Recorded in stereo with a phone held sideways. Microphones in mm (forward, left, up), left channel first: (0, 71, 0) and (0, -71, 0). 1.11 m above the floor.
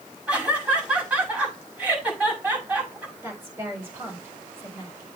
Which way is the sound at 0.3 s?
10° right (ahead or behind).